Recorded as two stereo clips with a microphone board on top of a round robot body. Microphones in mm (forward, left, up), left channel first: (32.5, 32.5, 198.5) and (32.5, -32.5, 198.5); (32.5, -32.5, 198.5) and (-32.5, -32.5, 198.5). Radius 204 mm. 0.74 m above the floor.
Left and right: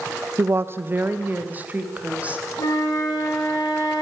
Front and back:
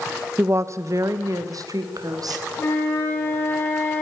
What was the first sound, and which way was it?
A woman speaking, 130° right.